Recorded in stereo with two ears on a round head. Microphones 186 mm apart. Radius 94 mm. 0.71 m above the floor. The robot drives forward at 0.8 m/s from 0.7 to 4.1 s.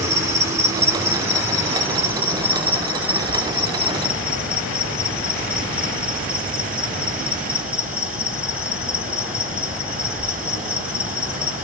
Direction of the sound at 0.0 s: 15° right (ahead or behind).